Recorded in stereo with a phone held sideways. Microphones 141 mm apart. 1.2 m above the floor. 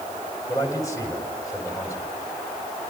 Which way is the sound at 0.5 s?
20° left (ahead or behind).